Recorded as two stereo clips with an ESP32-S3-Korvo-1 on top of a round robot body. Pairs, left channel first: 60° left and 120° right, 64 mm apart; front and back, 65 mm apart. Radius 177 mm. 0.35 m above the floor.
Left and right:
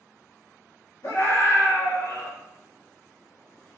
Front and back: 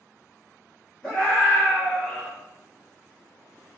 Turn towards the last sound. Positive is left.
turn(degrees=75)